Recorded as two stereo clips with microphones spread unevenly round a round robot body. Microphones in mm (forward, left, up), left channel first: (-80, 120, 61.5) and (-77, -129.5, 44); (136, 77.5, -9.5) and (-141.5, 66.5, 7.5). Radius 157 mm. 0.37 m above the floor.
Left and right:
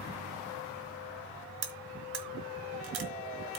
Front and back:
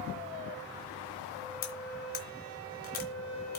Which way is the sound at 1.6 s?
55° right.